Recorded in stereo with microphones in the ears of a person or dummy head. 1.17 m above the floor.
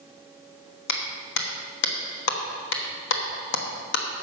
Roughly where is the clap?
Left.